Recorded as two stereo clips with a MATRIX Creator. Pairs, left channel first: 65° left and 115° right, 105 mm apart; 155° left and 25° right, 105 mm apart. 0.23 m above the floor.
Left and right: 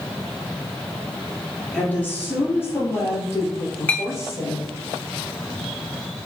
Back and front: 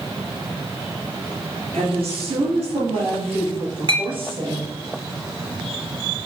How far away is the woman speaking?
About 3.5 m.